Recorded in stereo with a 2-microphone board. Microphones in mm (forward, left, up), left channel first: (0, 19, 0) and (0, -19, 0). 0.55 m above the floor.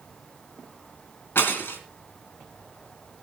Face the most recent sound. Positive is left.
turn(degrees=85)